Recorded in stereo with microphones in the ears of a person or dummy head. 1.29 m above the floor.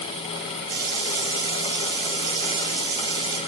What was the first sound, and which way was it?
A running tap, 55° right (ahead or behind).